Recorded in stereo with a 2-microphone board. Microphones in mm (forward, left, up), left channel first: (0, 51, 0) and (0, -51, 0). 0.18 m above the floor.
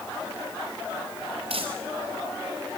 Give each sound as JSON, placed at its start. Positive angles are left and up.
{"t": 1.5, "sound": "crumpling", "side_deg": -75, "distance_m": 5.0}